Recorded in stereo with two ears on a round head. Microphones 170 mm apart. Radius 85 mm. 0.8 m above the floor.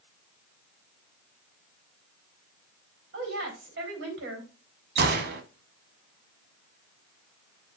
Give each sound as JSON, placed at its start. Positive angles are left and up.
{"t": 3.1, "sound": "a woman speaking", "side_deg": -65, "distance_m": 4.0}
{"t": 5.0, "sound": "a gunshot", "side_deg": -55, "distance_m": 1.0}